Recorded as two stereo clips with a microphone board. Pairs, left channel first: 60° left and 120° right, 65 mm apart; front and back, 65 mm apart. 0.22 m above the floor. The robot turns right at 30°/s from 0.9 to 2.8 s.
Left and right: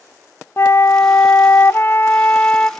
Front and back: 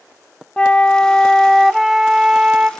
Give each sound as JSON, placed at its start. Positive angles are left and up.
{"t": 0.6, "sound": "a flute", "azimuth_deg": 65, "distance_m": 0.5}